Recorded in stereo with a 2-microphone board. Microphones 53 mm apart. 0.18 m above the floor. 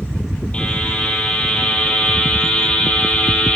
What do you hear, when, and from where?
0.5 s a buzzer: 20° left (ahead or behind), 6.5 m